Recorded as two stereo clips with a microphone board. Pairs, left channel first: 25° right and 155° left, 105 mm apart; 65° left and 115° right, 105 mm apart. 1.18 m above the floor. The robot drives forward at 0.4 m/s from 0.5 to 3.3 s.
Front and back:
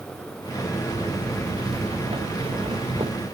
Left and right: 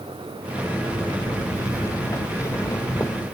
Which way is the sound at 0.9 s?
130° left.